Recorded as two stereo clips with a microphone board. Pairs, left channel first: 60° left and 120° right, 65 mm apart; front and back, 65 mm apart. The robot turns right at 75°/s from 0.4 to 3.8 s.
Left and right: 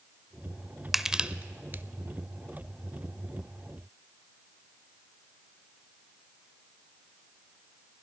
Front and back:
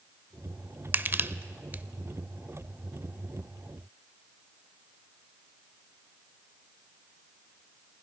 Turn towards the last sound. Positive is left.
turn(degrees=10)